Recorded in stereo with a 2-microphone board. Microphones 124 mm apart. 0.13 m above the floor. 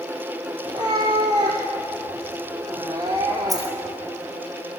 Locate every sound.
0.7 s a cat meowing: 35° right (ahead or behind), 3 m
3.5 s a dropped coin: 30° right (ahead or behind), 3 m